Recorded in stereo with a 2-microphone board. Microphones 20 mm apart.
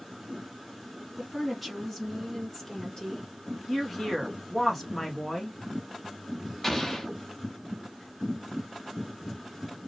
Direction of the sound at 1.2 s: 5° right (ahead or behind).